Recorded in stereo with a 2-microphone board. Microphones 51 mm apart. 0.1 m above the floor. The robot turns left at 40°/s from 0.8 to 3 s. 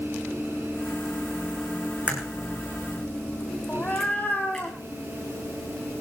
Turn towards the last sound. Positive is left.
turn(degrees=30)  # may be behind; listen again after turning